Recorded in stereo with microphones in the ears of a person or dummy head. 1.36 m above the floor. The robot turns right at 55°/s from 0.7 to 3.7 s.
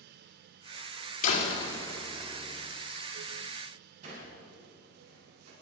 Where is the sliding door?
45° right (ahead or behind), 7 m.